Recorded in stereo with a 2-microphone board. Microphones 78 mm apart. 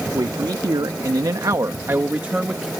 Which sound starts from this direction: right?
A man speaking, at 0.1 s.